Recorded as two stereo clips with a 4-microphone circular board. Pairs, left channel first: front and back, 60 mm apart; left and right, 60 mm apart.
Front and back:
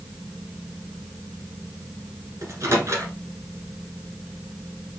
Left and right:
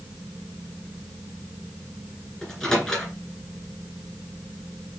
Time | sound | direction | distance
2.4 | a microwave | 170° left | 1.5 m